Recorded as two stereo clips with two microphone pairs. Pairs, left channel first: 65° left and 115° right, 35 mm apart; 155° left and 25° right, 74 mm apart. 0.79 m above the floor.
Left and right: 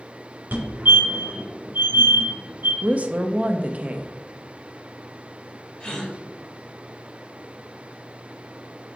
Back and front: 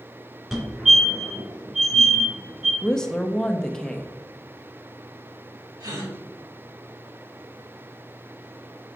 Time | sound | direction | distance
0.5 | a fire alarm | 105° right | 2.5 m
2.8 | a woman speaking | 125° right | 0.7 m
5.8 | a gasp | 10° left | 2 m